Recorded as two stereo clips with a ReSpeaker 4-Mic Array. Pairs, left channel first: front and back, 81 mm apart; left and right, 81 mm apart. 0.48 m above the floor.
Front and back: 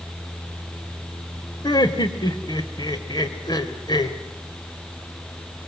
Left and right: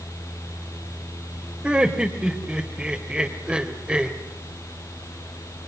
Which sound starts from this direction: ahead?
Laughter, at 1.6 s.